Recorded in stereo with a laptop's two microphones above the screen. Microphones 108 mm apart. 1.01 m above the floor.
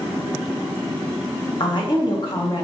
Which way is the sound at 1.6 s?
45° left (ahead or behind).